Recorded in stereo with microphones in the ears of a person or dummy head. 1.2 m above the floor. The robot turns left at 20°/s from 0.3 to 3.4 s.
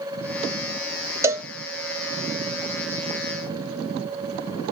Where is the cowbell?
20° right (ahead or behind), 0.6 m; by 1.5 s 15° right (ahead or behind), 0.6 m.